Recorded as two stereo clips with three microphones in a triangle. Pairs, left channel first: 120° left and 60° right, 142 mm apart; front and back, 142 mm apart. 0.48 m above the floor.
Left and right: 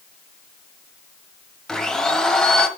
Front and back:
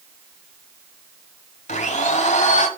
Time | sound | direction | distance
1.7 | a blender | 35° left | 1.0 m